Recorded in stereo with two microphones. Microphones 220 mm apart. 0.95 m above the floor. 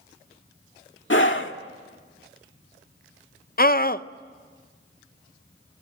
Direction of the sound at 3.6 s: 40° left (ahead or behind).